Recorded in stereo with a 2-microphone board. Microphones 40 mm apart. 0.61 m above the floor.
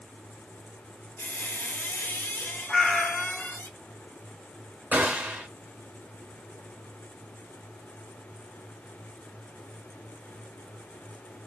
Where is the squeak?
65° left (ahead or behind), 1.5 m.